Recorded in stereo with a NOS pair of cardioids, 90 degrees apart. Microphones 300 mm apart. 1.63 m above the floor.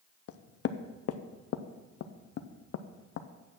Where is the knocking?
55° left, 0.7 m.